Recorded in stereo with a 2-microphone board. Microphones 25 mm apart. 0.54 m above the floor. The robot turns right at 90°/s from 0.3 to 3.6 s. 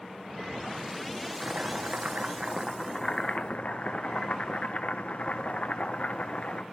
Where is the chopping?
125° right, 1.3 m; by 6.6 s 70° left, 1.3 m.